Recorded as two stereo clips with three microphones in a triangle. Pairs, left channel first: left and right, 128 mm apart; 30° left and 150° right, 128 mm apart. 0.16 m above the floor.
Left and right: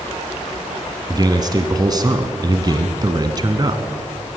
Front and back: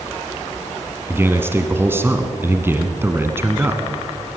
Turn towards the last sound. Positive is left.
turn(degrees=-95)